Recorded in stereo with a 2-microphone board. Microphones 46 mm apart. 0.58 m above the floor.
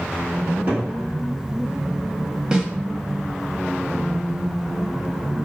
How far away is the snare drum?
About 0.5 m.